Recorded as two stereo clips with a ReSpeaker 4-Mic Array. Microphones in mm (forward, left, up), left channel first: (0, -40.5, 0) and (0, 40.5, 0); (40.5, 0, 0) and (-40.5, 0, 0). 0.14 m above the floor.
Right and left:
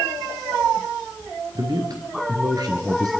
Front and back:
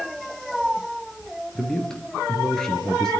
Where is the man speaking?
80° left, 2.5 m.